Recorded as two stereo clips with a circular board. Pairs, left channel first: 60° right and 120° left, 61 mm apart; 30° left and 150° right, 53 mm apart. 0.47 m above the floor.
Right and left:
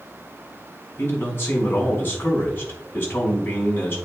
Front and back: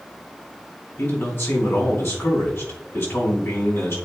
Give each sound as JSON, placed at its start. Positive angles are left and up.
{"t": 1.0, "sound": "a man speaking", "azimuth_deg": -5, "distance_m": 4.0}